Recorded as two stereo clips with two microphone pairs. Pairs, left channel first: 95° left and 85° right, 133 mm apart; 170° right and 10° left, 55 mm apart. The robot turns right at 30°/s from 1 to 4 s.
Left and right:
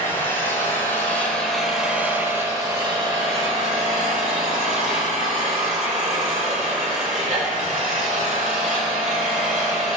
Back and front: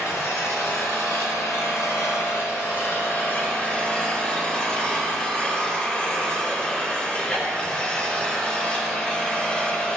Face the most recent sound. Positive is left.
turn(degrees=-105)